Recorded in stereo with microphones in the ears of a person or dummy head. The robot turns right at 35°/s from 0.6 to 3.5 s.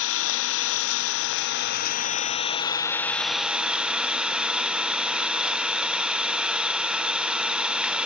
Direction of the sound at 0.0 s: 80° left.